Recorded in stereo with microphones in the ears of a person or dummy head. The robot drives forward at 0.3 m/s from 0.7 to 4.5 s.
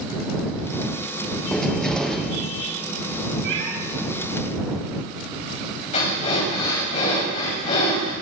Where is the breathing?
45° left (ahead or behind), 4.5 m.